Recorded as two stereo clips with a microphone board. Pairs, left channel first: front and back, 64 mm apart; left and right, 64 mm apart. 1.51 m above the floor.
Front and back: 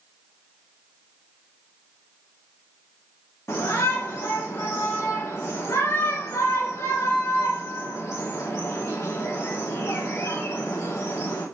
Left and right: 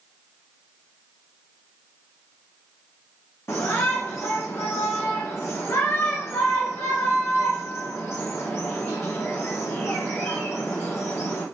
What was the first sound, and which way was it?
A shout, 45° left.